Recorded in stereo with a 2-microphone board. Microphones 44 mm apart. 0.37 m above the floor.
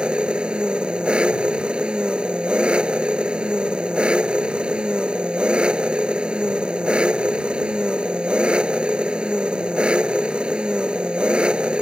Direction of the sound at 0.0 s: 25° right (ahead or behind).